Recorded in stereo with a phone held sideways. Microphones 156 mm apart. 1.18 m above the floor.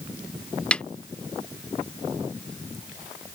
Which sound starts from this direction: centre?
A snare drum, at 0.7 s.